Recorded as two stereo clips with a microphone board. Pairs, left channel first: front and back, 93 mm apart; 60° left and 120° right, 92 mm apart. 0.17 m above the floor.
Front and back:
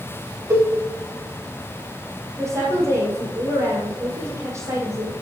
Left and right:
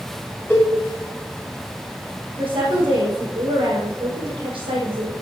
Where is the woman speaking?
125° right, 6 m.